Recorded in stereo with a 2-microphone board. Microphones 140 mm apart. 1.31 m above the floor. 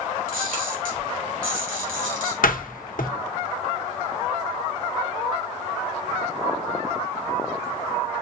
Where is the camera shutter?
75° right (ahead or behind), 3 m.